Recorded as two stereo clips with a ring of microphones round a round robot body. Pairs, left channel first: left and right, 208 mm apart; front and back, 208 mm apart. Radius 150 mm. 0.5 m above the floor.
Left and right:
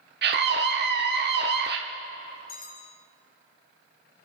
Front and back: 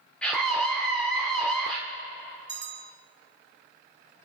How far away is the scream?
About 1.0 m.